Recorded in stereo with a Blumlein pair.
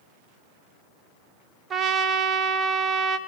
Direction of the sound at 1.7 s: 20° right.